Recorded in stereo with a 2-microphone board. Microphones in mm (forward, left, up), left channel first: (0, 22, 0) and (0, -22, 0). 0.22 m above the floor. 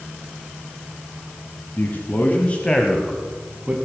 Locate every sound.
1.8 s a man speaking: 50° left (ahead or behind), 2 m; by 3.8 s 25° right (ahead or behind), 1.7 m